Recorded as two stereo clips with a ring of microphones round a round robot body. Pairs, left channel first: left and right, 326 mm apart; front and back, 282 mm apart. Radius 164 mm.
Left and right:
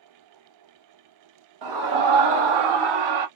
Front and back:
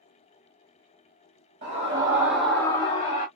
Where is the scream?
110° right, 1.5 m; by 3.3 s 65° right, 1.6 m.